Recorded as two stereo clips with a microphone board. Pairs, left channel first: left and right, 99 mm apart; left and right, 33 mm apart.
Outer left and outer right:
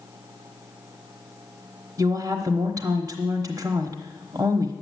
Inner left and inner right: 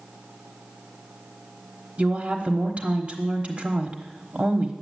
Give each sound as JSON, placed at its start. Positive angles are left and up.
{"t": 2.0, "sound": "a woman speaking", "side_deg": -40, "distance_m": 1.2}